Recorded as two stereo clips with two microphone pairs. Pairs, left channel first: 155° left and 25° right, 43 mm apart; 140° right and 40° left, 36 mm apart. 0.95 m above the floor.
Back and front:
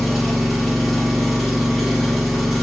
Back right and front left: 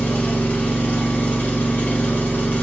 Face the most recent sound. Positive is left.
turn(degrees=-120)